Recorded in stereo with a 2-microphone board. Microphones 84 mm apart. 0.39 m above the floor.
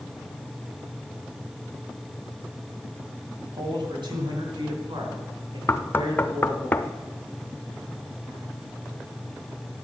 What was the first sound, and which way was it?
A man speaking, 65° right (ahead or behind).